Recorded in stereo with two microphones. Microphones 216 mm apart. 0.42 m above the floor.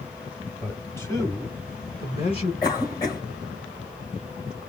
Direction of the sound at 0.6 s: 5° left (ahead or behind).